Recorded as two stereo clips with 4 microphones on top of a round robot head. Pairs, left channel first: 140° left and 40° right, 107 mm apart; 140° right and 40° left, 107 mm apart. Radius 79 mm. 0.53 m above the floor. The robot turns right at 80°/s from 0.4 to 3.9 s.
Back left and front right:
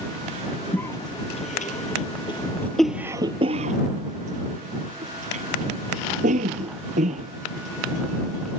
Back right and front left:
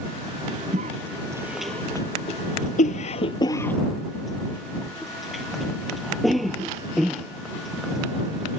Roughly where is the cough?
Ahead left.